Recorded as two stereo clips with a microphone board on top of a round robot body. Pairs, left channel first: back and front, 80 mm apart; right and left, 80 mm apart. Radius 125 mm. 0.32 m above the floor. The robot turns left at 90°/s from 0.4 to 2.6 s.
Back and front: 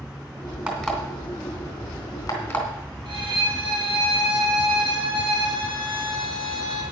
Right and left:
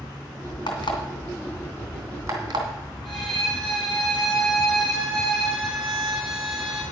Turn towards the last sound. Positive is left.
turn(degrees=0)